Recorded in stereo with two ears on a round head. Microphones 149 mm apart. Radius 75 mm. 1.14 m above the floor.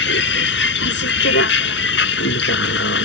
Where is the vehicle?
75° left (ahead or behind).